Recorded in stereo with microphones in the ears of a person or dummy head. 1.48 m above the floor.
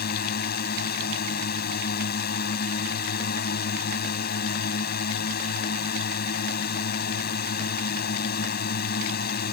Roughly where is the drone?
Left.